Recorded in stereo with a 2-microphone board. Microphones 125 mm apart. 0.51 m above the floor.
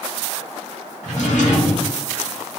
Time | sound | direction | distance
1.0 | a drawer | 70° left (ahead or behind) | 1.3 m